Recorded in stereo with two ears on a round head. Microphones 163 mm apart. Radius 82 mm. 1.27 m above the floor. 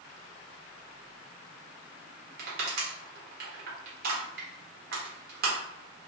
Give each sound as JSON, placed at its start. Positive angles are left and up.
{"t": 2.4, "sound": "crushing", "side_deg": -60, "distance_m": 0.9}